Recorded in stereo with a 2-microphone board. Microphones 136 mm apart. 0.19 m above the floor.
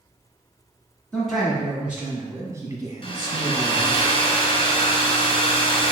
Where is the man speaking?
5° left (ahead or behind), 1.4 m; by 4.0 s 45° right (ahead or behind), 1.4 m.